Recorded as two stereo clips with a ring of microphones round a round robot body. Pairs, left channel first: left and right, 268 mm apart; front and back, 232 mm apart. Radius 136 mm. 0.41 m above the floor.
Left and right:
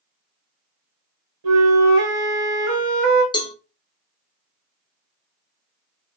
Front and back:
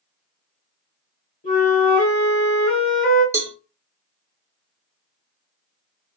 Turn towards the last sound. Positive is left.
turn(degrees=125)